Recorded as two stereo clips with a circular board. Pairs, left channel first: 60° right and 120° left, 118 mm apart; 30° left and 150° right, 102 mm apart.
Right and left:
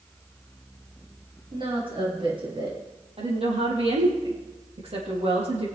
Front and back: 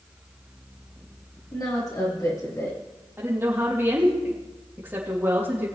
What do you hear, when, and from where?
1.5 s a woman speaking: 80° left, 6 m; by 2.8 s 85° left, 5.5 m
3.2 s a woman speaking: 140° left, 4.5 m